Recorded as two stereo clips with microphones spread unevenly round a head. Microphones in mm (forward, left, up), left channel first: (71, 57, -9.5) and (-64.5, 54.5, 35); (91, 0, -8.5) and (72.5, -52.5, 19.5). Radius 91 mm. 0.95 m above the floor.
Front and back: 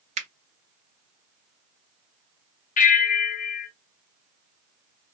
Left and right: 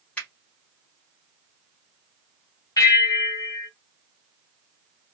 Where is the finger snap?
140° left, 0.8 m.